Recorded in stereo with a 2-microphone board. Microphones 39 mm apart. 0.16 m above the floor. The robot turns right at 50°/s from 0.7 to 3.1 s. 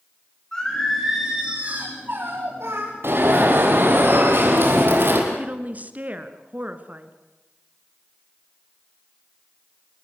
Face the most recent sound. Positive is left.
turn(degrees=-40)  # may be behind; listen again after turning